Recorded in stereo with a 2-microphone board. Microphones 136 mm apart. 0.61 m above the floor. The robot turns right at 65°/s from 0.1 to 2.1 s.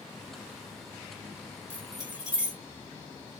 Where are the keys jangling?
15° left (ahead or behind), 1.6 m; by 2.6 s 10° right (ahead or behind), 1.6 m.